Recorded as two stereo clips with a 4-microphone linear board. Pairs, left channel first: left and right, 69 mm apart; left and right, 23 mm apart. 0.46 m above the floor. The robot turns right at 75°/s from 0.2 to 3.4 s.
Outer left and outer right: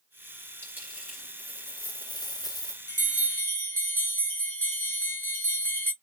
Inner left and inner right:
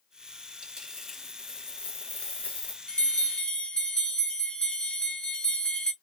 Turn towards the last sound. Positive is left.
turn(degrees=135)